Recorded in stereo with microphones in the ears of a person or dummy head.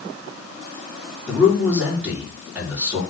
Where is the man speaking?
5° right (ahead or behind), 3.5 m.